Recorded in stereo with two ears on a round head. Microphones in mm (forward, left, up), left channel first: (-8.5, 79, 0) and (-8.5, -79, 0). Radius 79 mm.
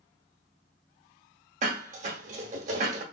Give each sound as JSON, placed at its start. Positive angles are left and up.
{"t": 1.6, "sound": "dishes clattering", "side_deg": -40, "distance_m": 0.9}